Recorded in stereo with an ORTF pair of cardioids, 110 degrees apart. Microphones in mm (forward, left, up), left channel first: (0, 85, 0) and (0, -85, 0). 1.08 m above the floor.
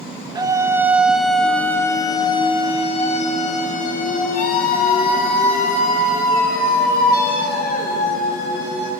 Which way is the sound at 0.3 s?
25° right.